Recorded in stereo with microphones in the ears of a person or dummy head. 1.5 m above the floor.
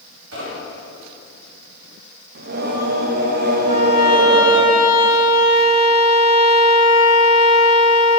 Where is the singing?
50° right (ahead or behind), 0.7 m.